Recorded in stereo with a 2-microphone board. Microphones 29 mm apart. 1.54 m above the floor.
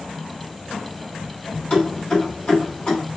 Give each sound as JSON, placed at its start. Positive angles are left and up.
{"t": 1.7, "sound": "keys jangling", "side_deg": 35, "distance_m": 1.7}